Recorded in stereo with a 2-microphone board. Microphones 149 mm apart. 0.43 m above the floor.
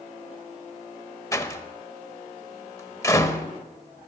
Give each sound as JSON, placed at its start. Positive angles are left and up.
{"t": 1.3, "sound": "a door slam", "side_deg": 20, "distance_m": 1.0}